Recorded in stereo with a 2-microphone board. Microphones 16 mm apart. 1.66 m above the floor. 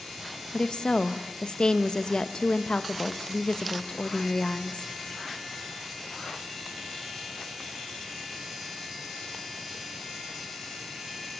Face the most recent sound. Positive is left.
turn(degrees=55)  # may be behind; listen again after turning